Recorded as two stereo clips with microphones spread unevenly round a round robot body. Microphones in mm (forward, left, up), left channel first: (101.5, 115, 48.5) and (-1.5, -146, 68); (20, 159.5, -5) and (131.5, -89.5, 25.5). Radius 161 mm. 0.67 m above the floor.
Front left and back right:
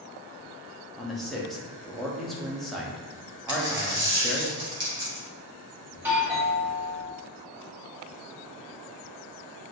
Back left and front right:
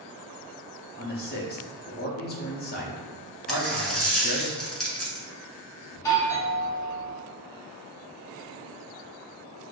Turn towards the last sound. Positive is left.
turn(degrees=165)